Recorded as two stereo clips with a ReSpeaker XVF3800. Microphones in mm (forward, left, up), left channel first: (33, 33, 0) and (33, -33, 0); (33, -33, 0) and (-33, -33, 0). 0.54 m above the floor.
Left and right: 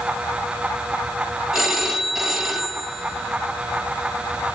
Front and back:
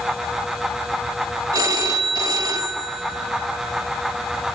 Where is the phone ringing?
175° right, 1.9 m.